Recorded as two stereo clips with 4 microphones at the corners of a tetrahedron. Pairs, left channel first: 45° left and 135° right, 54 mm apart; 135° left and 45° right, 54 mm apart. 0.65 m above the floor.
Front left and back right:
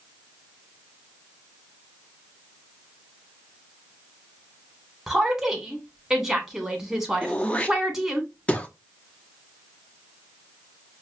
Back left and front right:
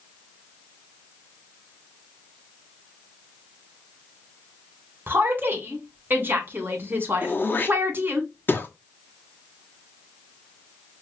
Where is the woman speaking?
55° right, 1.4 m.